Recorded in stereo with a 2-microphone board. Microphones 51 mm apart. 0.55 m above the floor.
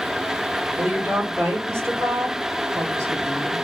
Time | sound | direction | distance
0.8 | a woman speaking | 45° right (ahead or behind) | 1.1 m